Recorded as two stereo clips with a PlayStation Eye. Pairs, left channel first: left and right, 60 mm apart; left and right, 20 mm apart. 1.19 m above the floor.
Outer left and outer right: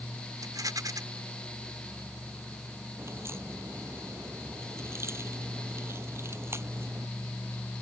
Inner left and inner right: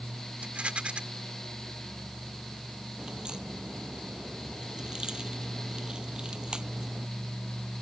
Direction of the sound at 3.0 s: 45° right (ahead or behind).